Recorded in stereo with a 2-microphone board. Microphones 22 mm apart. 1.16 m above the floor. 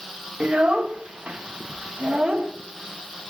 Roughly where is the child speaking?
Right.